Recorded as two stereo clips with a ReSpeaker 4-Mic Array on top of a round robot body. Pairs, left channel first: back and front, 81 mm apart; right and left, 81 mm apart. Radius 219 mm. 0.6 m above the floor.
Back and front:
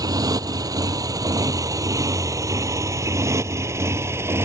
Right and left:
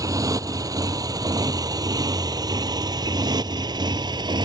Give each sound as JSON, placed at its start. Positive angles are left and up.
{"t": 0.0, "sound": "a motorcycle", "azimuth_deg": 45}